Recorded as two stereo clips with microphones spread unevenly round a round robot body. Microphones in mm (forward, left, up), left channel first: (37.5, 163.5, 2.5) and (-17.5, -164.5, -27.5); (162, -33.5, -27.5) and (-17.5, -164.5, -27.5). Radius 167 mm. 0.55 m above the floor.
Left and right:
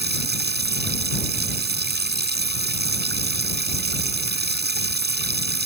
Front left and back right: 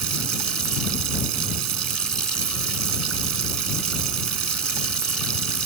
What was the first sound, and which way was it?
Running water, 160° right.